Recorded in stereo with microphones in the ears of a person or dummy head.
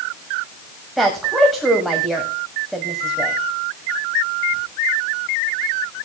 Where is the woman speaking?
Centre (ahead or behind), 1.3 m.